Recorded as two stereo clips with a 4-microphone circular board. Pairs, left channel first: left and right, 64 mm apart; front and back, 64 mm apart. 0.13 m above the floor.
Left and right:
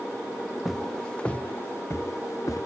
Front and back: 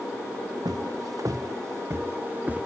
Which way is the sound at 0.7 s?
Straight behind.